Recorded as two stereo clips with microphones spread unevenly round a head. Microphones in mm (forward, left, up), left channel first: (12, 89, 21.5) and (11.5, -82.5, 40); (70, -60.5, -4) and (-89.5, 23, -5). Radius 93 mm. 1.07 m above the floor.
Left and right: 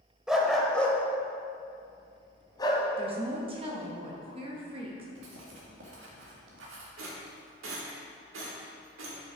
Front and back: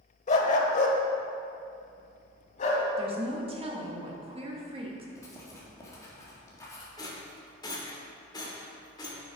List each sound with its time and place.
0.3 s a dog barking: 15° right, 1.0 m; by 2.9 s 20° left, 1.9 m
3.0 s a woman speaking: 150° right, 1.7 m
5.2 s writing: 100° right, 2 m
7.0 s a rattle: 95° right, 1.7 m